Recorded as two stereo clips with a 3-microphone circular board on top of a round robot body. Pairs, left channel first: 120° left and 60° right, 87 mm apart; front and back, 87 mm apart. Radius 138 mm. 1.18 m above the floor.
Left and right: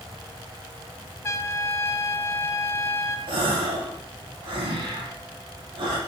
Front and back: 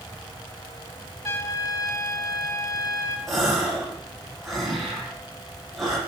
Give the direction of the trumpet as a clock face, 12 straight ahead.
10 o'clock.